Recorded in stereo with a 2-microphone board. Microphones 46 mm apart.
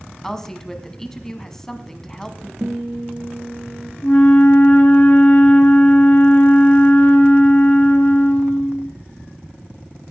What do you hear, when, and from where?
0.2 s a woman speaking: 10° left (ahead or behind), 1.4 m
2.6 s a guitar: 40° right (ahead or behind), 2.5 m
4.0 s a flute: 40° left (ahead or behind), 1.5 m